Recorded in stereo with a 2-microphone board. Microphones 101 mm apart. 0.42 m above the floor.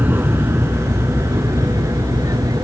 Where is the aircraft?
20° right (ahead or behind); by 2.6 s 35° right (ahead or behind).